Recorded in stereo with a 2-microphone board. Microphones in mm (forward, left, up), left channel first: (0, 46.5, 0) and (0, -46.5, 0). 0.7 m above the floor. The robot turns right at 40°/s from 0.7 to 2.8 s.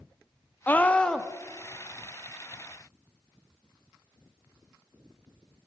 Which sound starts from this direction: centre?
A scream, at 0.7 s.